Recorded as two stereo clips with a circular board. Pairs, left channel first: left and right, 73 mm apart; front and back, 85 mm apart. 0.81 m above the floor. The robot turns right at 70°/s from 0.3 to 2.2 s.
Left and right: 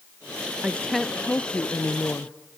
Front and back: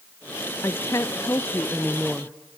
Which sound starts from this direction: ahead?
A woman speaking, at 0.6 s.